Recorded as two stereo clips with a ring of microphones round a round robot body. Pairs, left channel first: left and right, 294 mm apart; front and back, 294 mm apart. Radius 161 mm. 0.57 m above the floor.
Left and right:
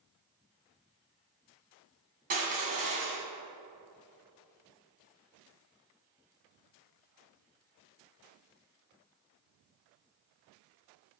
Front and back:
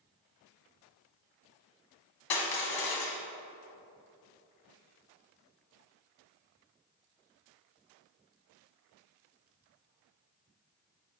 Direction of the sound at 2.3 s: 25° right.